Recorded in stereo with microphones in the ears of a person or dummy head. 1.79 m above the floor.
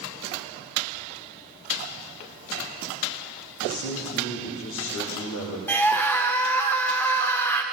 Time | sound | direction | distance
3.6 | a man speaking | 80° left | 1.7 m
5.7 | a scream | 10° left (ahead or behind) | 0.8 m